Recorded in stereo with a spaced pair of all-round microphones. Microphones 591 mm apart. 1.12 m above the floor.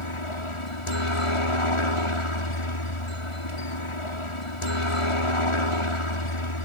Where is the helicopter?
60° left (ahead or behind).